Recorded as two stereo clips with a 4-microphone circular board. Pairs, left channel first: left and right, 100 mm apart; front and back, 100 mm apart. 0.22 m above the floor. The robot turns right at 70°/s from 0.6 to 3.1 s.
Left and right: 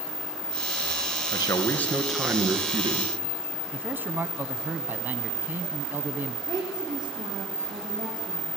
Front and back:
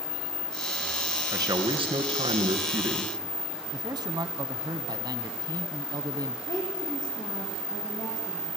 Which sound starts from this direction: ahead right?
A woman speaking, at 6.5 s.